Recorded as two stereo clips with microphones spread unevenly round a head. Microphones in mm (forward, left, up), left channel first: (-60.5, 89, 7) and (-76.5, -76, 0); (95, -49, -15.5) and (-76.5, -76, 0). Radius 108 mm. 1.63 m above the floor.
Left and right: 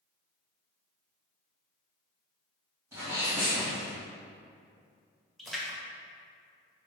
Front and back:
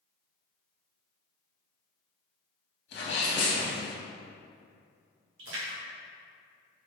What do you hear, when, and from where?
2.9 s a sneeze: 20° right, 1.7 m
5.4 s a splash: 175° left, 1.7 m